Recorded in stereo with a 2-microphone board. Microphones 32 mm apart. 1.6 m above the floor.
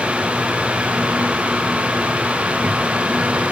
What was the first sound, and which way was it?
Only background noise.